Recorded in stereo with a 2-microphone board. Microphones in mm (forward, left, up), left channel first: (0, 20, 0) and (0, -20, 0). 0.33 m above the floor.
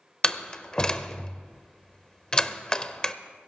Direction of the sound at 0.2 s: 20° left (ahead or behind).